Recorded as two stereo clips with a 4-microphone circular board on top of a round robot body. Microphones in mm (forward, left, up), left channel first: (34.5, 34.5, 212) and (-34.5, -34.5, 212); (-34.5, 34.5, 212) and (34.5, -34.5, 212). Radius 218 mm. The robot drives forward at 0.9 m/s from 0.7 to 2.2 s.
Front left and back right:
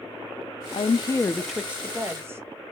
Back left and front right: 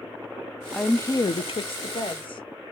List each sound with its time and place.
0.7 s a woman speaking: 45° left, 0.6 m; by 2.4 s 160° left, 1.1 m